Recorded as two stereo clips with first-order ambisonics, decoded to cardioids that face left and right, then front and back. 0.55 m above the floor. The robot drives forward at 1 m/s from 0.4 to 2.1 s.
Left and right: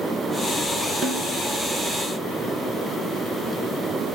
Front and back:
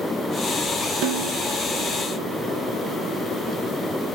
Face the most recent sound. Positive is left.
turn(degrees=180)